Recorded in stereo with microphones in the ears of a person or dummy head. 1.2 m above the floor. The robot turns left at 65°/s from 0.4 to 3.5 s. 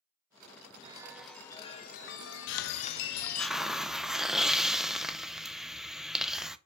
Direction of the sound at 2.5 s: 60° left.